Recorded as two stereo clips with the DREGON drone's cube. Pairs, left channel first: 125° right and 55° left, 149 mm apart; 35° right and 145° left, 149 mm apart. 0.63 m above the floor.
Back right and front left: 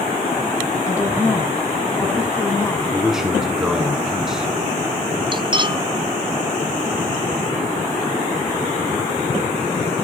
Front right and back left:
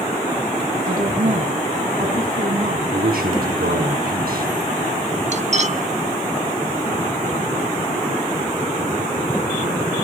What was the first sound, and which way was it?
A woman speaking, 165° left.